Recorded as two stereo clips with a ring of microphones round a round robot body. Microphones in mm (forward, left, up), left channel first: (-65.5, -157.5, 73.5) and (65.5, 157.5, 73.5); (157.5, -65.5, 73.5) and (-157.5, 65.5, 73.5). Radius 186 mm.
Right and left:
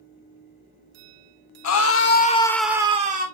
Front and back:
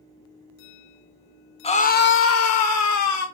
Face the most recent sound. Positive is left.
turn(degrees=5)